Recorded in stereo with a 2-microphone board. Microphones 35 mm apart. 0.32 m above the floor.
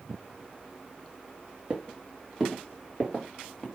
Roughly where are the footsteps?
Centre.